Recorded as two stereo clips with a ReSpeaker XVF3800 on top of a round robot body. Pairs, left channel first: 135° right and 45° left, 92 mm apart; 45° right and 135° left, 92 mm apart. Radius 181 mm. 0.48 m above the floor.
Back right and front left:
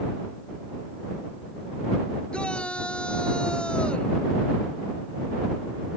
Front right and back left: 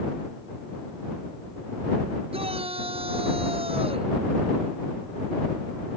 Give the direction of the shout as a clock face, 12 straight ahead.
7 o'clock.